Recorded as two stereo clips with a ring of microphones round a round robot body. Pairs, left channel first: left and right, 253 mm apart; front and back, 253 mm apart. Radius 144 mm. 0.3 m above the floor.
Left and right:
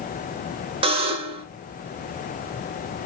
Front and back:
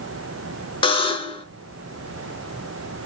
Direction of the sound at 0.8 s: 50° right.